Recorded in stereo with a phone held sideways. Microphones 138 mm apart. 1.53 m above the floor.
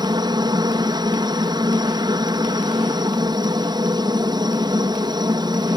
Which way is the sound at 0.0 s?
30° right (ahead or behind).